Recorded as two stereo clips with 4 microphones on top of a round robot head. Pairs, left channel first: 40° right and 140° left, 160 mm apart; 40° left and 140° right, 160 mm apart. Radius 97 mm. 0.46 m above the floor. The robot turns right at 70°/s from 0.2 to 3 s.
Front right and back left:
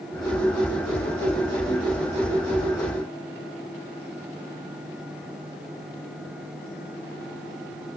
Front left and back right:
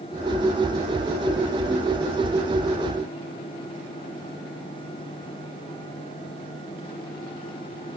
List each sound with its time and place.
Only background noise.